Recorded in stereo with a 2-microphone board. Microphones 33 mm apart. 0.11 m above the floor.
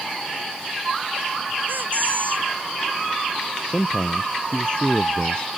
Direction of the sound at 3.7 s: 35° left (ahead or behind).